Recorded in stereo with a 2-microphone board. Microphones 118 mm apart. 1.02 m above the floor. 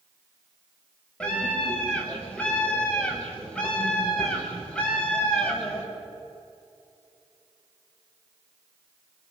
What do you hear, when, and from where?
1.2 s a scream: 10° left (ahead or behind), 7.5 m